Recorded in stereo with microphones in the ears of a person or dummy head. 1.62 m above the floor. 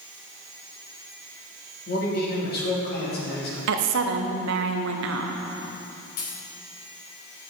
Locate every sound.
1.9 s a man speaking: 60° left (ahead or behind), 2.5 m
3.7 s a woman speaking: 70° right (ahead or behind), 0.9 m
6.2 s a dropped coin: 55° left (ahead or behind), 2.5 m